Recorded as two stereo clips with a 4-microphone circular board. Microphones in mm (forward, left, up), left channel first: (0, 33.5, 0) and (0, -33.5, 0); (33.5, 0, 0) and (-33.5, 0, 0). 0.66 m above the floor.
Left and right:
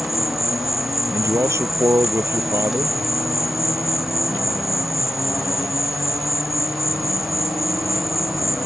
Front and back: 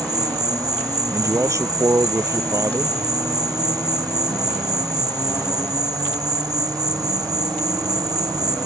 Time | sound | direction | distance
0.0 | an insect | 175° right | ?
1.1 | a man speaking | 140° right | ?